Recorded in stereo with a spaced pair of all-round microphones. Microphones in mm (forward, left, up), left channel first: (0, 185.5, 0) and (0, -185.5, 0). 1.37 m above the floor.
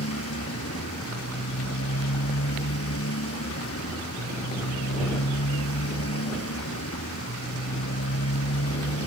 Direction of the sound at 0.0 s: 40° left (ahead or behind).